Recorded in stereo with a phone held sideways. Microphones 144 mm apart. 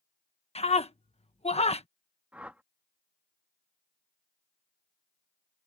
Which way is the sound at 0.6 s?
45° left (ahead or behind).